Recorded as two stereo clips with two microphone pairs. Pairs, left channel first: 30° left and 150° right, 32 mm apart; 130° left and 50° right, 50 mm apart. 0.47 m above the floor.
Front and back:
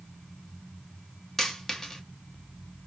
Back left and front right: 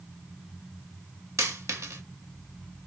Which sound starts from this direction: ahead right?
A dropped coin, at 1.4 s.